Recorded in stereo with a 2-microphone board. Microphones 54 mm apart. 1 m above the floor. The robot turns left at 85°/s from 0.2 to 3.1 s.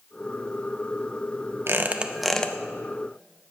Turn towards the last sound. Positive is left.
turn(degrees=110)